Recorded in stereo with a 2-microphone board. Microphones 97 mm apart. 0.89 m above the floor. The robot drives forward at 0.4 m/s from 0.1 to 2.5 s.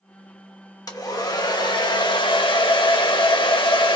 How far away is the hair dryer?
About 1.1 m.